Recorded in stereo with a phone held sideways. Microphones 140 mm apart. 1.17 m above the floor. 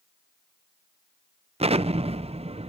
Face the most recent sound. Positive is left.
turn(degrees=-45)  # may be behind; listen again after turning